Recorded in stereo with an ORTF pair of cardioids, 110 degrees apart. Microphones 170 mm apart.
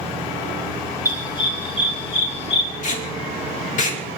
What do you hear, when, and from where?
1.1 s a dog barking: 25° left, 3.5 m; by 2.7 s 40° left, 4 m
2.8 s tape being pulled: 50° left, 3 m